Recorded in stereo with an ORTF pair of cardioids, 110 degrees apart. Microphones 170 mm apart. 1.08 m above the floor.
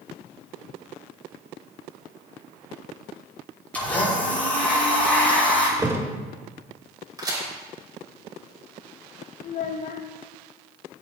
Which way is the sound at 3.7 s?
10° left.